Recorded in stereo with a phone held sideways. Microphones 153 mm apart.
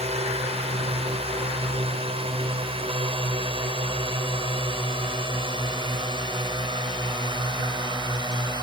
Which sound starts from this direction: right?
A drone, at 0.0 s.